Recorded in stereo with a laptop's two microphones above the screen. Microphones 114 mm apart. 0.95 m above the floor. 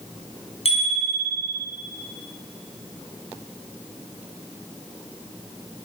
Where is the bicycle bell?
60° left (ahead or behind), 5 m.